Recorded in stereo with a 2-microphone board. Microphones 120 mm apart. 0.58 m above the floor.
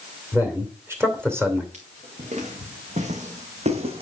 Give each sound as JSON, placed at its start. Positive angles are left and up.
{"t": 0.3, "sound": "a man speaking", "side_deg": -20, "distance_m": 2.5}
{"t": 1.7, "sound": "footsteps", "side_deg": -75, "distance_m": 3.5}